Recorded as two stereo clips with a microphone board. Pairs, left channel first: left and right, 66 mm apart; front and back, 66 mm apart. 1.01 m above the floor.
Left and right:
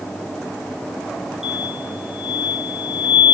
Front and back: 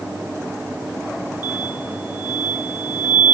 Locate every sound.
1.4 s an explosion: 170° right, 0.6 m